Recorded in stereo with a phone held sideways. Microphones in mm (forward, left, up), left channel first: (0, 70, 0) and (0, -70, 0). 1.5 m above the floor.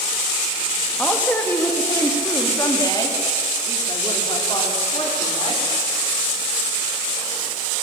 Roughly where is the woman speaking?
Centre.